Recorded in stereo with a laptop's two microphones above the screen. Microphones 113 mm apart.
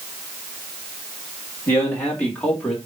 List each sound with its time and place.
1.7 s a man speaking: 20° left (ahead or behind), 2 m; by 2.8 s 5° left (ahead or behind), 2.5 m